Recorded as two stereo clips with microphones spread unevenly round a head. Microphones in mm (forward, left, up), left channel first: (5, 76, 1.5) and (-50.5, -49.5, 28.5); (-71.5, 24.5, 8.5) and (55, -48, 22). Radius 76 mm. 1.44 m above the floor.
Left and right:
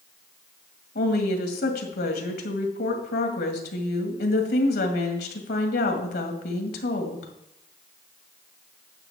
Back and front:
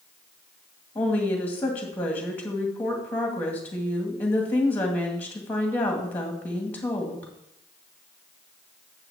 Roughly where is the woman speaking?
Left.